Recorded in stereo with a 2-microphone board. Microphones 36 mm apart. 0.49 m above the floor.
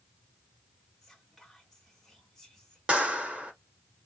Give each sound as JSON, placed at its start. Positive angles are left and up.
{"t": 1.0, "sound": "whispering", "side_deg": 5, "distance_m": 0.9}
{"t": 2.9, "sound": "a clap", "side_deg": -30, "distance_m": 1.3}